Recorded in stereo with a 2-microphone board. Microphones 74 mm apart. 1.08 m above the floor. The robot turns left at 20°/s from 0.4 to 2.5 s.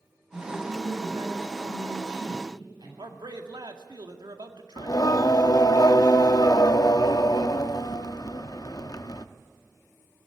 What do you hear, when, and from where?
0.3 s a woman speaking: 45° right, 8.5 m; by 2.9 s 90° right, 8.5 m
3.0 s a man speaking: 80° right, 2.0 m
4.8 s singing: 55° left (ahead or behind), 0.8 m